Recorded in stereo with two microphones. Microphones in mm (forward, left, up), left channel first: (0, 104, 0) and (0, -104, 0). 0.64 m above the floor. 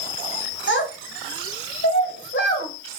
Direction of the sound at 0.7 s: 65° left (ahead or behind).